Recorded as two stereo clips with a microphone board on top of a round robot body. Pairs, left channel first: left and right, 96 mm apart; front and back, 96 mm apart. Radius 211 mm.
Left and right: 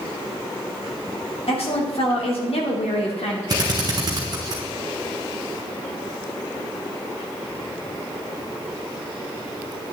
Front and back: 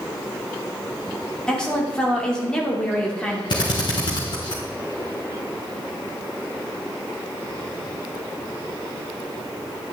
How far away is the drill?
About 1.2 m.